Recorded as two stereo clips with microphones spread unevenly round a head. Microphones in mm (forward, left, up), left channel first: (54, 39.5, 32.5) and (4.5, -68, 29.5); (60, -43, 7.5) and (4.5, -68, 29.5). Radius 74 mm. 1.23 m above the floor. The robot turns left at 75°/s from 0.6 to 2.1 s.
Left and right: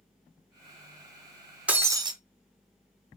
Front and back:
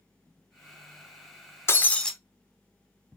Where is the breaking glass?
35° right, 0.6 m; by 2.1 s 65° right, 0.6 m.